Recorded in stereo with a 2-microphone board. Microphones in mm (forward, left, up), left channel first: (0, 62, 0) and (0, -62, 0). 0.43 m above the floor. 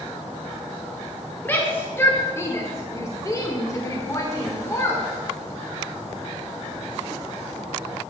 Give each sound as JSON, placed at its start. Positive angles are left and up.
{"t": 1.4, "sound": "a shout", "side_deg": 15, "distance_m": 1.5}